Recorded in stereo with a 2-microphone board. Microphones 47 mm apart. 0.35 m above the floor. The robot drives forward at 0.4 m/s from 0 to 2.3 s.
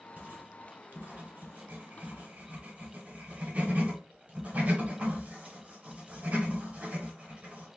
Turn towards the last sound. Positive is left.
turn(degrees=-35)  # may be behind; listen again after turning